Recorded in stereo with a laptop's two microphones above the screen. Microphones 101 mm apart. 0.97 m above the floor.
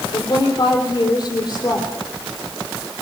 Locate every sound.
0.1 s a woman speaking: 40° left (ahead or behind), 4 m